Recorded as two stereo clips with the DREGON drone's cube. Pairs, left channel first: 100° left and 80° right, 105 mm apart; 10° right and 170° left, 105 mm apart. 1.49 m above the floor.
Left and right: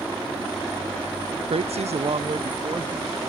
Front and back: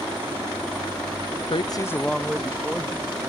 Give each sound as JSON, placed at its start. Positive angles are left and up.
{"t": 1.5, "sound": "a woman speaking", "azimuth_deg": -45}